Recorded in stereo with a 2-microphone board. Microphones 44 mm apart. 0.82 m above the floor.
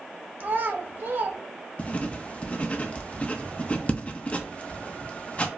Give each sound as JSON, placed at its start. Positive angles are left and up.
{"t": 0.4, "sound": "a child speaking", "side_deg": -45, "distance_m": 0.8}
{"t": 1.8, "sound": "writing", "side_deg": 30, "distance_m": 0.6}